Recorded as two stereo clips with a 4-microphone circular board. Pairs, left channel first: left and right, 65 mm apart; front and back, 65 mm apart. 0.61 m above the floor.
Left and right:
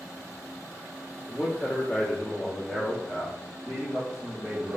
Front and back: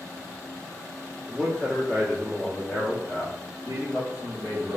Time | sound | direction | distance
1.3 | a man speaking | 65° left | 1.4 m